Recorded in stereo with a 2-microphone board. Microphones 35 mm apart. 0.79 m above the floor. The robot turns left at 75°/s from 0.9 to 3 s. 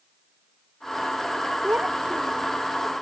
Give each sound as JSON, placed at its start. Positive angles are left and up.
{"t": 1.6, "sound": "a child speaking", "azimuth_deg": -115}